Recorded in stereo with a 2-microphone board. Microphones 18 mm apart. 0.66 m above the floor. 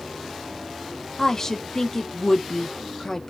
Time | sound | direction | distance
1.2 | a woman speaking | 25° left (ahead or behind) | 0.8 m